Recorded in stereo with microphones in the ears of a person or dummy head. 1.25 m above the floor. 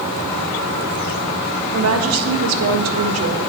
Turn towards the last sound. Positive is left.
turn(degrees=-85)